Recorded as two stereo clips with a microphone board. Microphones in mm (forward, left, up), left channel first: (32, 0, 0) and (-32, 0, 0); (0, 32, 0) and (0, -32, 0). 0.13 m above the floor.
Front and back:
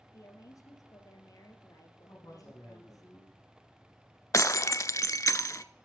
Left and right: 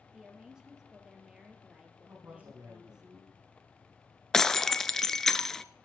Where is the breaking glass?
10° left, 0.5 m.